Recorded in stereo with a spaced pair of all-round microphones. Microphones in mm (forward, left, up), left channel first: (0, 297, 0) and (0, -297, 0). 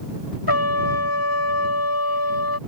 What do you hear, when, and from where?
0.5 s a trumpet: 40° left (ahead or behind)